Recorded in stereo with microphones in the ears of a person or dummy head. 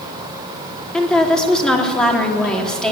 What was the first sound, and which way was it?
A woman speaking, 5° left (ahead or behind).